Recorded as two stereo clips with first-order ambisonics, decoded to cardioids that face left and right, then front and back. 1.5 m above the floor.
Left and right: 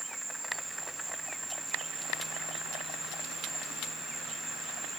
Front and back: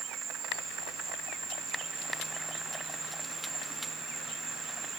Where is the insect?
155° right.